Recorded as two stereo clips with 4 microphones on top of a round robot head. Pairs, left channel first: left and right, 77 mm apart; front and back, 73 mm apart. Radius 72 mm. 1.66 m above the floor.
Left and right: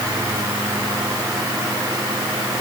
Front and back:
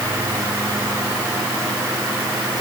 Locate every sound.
Only background noise.